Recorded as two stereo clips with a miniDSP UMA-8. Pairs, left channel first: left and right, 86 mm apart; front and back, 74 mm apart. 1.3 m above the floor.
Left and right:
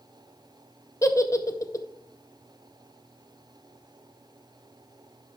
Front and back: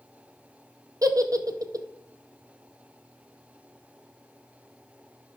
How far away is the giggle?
About 0.6 m.